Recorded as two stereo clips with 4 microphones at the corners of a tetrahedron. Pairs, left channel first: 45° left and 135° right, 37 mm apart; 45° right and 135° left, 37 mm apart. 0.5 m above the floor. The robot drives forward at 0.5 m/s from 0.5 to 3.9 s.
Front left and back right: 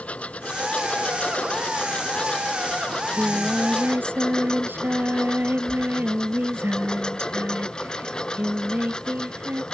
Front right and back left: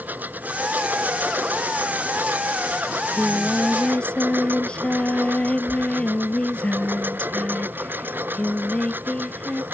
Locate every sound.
0.0 s a lawn mower: 100° left; by 9.7 s 115° left
2.9 s singing: 105° right